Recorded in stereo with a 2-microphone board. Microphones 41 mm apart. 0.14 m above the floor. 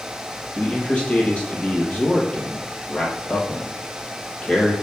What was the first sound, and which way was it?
A man speaking, 30° left (ahead or behind).